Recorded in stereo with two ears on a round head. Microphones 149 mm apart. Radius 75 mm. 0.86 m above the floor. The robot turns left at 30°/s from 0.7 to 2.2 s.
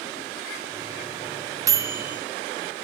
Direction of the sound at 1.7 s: 20° right (ahead or behind).